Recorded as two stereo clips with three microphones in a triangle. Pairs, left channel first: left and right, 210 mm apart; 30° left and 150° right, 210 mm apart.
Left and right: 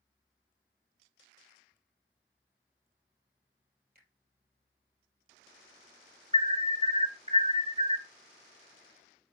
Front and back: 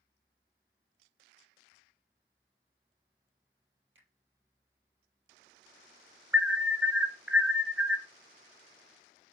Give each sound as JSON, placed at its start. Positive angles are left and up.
{"t": 4.0, "sound": "a finger snap", "azimuth_deg": -130, "distance_m": 3.0}
{"t": 6.3, "sound": "an alarm", "azimuth_deg": -70, "distance_m": 1.2}